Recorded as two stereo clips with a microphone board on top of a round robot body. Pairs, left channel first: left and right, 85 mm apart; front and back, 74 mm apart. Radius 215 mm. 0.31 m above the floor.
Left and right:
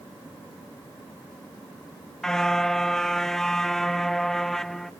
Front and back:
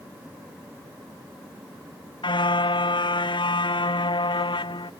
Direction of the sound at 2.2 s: 5° left.